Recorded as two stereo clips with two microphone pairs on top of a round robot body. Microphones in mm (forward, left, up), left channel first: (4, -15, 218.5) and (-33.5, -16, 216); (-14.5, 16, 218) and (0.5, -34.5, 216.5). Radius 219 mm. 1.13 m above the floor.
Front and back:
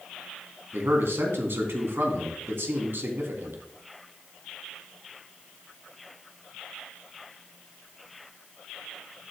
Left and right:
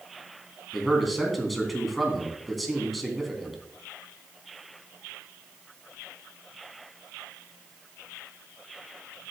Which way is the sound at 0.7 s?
165° right.